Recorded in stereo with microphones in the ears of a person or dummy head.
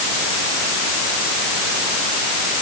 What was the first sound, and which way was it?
Only background noise.